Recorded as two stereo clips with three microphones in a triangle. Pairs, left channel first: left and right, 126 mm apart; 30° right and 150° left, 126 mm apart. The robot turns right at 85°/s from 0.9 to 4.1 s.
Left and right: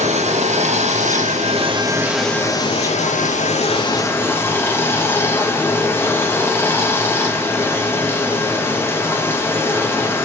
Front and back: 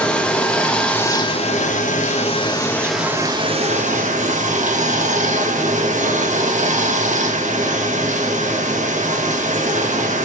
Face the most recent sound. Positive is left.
turn(degrees=160)